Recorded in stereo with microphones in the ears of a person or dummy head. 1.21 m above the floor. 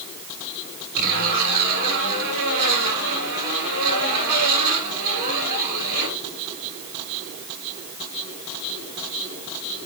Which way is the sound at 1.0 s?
50° right (ahead or behind).